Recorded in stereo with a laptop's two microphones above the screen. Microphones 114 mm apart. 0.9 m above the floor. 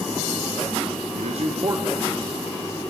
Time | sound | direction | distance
1.1 | a man speaking | 80° right | 1.0 m